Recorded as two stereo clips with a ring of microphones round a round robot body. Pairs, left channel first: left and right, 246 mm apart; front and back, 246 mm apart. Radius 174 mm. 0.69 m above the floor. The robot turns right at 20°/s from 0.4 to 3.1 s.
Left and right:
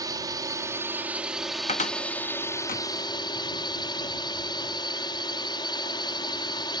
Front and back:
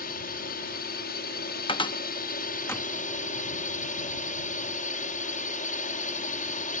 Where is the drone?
25° right; by 6.8 s 30° left.